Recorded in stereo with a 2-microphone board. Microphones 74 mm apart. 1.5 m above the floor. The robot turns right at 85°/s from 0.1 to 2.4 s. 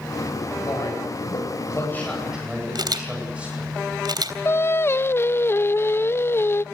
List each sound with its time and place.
0.6 s a man speaking: 45° left, 9.5 m; by 3.7 s 165° right, 9.5 m
2.8 s a camera shutter: 70° right (ahead or behind), 3 m
4.5 s singing: 30° left (ahead or behind), 0.5 m